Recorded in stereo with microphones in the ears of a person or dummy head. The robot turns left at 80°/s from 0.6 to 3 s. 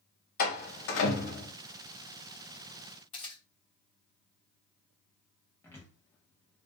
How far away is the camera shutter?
About 1.0 m.